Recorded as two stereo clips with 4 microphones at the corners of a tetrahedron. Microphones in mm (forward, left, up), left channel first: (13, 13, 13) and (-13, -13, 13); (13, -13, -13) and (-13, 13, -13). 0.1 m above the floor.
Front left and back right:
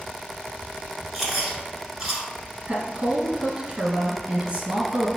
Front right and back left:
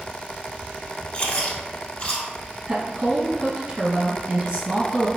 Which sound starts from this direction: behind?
A woman speaking, at 2.7 s.